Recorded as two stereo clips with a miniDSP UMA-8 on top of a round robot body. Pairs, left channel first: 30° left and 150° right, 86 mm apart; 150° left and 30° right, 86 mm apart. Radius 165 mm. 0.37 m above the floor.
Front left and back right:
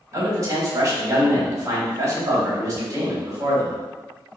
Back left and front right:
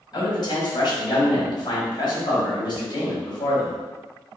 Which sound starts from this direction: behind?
A man speaking, at 0.1 s.